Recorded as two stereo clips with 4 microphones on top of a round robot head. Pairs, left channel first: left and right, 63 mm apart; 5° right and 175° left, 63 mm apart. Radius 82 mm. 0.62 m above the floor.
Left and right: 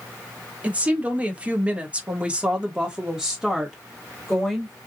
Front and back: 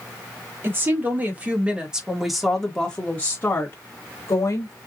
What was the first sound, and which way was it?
A woman speaking, 150° right.